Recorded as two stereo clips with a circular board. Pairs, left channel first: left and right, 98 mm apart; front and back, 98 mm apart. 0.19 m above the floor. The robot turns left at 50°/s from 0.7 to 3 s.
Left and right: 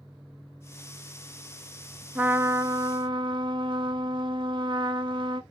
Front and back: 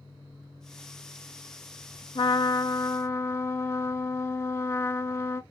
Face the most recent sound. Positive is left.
turn(degrees=-60)